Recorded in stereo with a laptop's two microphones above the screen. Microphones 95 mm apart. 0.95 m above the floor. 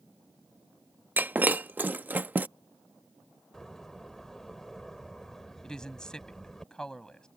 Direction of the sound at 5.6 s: 5° left (ahead or behind).